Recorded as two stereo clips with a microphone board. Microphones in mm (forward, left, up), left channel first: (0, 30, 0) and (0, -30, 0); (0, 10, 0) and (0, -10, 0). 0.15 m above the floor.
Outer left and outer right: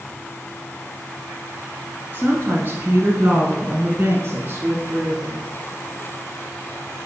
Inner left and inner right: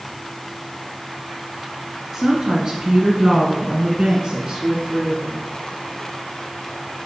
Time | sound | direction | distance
2.1 | a woman speaking | 30° right (ahead or behind) | 1.5 m